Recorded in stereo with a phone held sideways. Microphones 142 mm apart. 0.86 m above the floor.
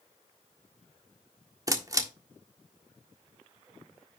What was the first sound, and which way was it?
A camera shutter, 25° right (ahead or behind).